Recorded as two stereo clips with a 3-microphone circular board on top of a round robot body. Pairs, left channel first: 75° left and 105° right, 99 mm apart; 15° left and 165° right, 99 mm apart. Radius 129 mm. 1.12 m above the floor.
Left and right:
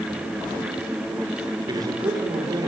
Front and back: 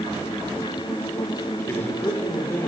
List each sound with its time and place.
1.7 s a man speaking: 55° right, 4.5 m